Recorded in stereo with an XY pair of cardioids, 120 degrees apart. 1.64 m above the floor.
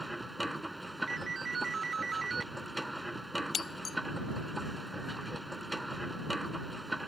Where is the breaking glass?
35° left.